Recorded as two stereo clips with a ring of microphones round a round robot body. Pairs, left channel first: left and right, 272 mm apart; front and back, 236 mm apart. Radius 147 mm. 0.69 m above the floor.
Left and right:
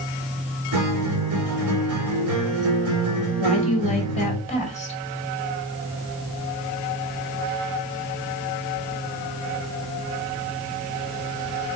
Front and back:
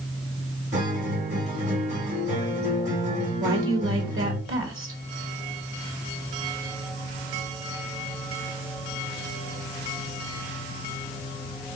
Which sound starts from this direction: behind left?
A woman speaking, at 3.4 s.